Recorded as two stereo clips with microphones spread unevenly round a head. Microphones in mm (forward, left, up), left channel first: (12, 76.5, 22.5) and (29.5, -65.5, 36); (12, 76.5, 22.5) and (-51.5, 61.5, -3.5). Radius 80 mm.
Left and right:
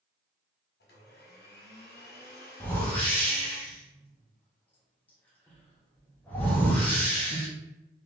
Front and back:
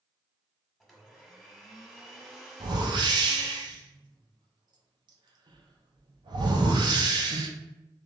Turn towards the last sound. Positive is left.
turn(degrees=180)